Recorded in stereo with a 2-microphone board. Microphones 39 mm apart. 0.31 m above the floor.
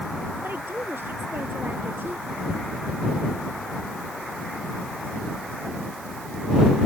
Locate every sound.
0.4 s a woman speaking: 60° right (ahead or behind)